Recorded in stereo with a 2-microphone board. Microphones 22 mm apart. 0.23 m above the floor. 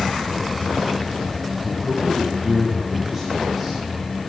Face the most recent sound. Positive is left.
turn(degrees=-15)  # may be behind; listen again after turning